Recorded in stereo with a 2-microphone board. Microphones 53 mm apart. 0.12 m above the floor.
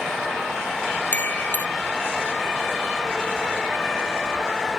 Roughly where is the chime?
Left.